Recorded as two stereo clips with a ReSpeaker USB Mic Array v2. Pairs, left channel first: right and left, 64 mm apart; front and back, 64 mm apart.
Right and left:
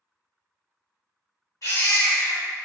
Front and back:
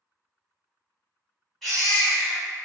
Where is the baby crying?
85° right, 1.8 m.